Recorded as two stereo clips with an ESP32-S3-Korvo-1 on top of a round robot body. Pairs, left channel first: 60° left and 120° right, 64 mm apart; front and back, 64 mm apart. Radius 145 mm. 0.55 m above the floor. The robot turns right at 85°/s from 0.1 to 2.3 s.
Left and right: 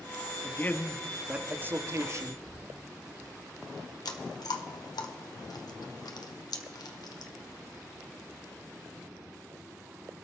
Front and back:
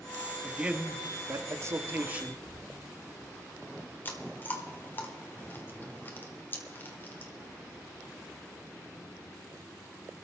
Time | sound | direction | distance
0.4 | a man speaking | 95° left | 1.4 m
2.5 | a thud | 25° right | 5 m
4.0 | chewing | 60° left | 1.7 m